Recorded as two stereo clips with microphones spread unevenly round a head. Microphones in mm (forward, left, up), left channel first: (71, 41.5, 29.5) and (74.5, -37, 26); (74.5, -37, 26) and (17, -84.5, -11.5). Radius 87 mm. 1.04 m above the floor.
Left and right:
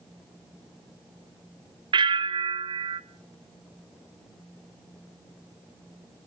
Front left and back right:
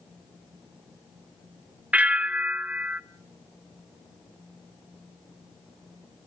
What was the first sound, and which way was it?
A bell, 70° right.